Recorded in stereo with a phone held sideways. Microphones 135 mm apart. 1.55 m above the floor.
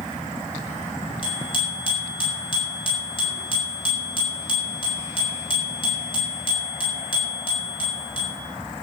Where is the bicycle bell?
40° left (ahead or behind), 7 m.